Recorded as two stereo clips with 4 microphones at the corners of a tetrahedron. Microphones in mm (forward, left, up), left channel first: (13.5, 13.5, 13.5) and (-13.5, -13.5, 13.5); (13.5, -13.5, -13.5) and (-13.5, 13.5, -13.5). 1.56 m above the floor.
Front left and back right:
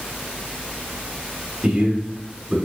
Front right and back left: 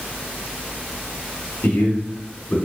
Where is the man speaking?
70° right, 2.5 m.